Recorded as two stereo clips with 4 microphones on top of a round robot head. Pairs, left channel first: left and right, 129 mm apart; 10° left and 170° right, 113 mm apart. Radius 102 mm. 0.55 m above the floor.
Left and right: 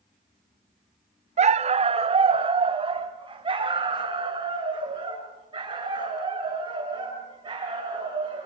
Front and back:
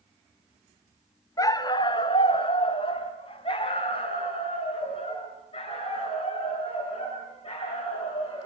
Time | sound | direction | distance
1.4 | a dog barking | 55° right | 0.7 m